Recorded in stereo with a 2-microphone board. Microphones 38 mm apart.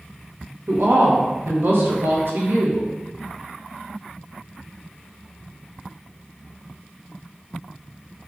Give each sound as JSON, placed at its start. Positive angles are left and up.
{"t": 0.7, "sound": "a woman speaking", "side_deg": -75, "distance_m": 0.9}